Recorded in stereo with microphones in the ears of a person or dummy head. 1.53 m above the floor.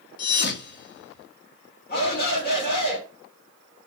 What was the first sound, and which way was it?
A thud, 50° left (ahead or behind).